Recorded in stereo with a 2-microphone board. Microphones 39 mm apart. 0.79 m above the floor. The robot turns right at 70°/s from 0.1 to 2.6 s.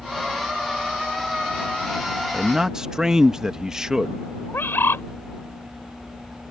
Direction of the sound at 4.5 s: 70° left (ahead or behind).